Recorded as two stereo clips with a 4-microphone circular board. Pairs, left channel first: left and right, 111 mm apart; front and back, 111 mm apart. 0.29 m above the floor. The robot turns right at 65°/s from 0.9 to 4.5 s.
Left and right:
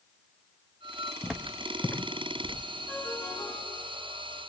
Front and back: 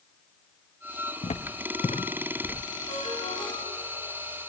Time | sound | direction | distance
1.2 | footsteps | 5° right | 1.1 m
2.9 | a ringtone | 5° left | 7.5 m